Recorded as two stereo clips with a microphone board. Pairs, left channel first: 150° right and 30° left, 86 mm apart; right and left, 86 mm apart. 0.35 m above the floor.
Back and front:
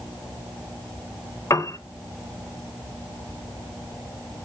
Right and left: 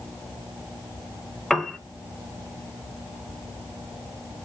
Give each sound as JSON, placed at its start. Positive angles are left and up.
{"t": 1.5, "sound": "a piano", "azimuth_deg": -175, "distance_m": 0.5}